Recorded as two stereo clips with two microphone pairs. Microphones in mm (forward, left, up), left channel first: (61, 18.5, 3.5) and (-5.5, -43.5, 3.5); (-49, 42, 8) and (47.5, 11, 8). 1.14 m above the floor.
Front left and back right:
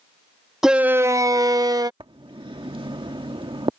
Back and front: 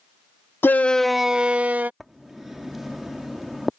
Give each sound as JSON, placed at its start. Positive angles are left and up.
{"t": 0.6, "sound": "a shout", "azimuth_deg": 140}
{"t": 2.0, "sound": "writing", "azimuth_deg": -105}